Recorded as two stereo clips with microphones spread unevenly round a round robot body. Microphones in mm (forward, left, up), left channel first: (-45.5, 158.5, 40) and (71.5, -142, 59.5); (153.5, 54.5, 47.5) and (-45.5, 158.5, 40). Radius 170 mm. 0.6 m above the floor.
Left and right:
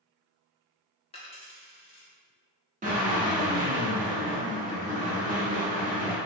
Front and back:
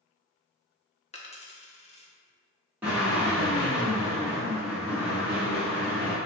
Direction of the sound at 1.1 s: 35° left.